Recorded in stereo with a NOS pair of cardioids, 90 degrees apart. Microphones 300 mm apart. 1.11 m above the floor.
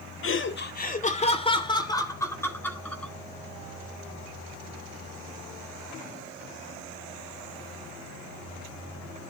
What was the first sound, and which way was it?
Laughter, 45° left.